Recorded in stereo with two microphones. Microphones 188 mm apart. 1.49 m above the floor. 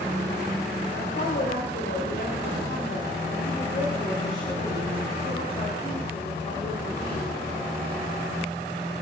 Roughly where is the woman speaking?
Left.